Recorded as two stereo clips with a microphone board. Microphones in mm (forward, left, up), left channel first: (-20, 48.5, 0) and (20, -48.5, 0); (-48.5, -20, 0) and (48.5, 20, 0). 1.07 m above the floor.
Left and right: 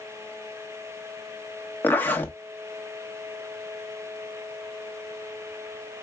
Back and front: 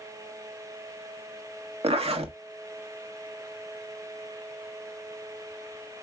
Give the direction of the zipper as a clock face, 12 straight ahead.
11 o'clock.